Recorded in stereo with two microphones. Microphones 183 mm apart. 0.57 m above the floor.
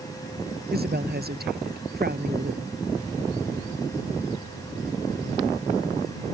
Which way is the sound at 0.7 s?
60° right (ahead or behind).